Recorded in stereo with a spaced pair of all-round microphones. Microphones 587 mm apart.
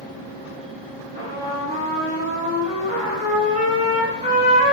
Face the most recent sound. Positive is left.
turn(degrees=-10)  # may be behind; listen again after turning